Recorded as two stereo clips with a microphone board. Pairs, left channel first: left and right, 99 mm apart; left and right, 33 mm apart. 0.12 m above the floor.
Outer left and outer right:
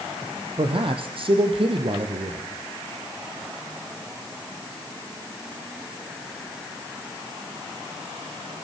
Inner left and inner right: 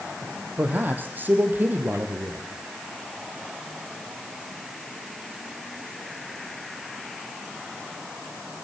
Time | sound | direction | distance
0.6 | a man speaking | 65° right (ahead or behind) | 3.5 m